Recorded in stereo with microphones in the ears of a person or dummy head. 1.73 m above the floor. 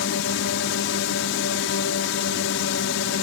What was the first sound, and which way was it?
A drone, 75° left (ahead or behind).